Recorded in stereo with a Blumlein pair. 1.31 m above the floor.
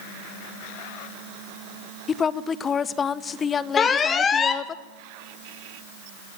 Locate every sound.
2.1 s a woman speaking: 20° left, 0.8 m
3.8 s an alarm: 20° left, 1.6 m